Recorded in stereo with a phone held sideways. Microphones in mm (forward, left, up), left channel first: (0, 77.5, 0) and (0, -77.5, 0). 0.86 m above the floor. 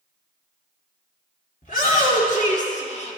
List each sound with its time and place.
1.6 s a shout: 60° left (ahead or behind), 2.5 m; by 3.2 s 40° left (ahead or behind), 1.5 m